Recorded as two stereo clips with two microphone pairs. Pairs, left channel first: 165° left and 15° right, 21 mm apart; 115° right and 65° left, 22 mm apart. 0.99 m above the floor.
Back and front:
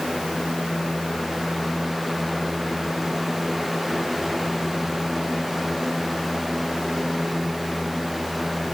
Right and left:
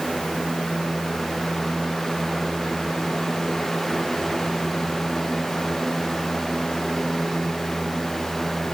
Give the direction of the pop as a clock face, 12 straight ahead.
No pop in this recording.